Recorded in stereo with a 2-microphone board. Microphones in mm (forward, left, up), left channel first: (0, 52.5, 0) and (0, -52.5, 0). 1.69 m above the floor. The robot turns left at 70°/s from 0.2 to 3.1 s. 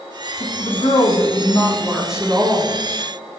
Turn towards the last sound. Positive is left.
turn(degrees=-75)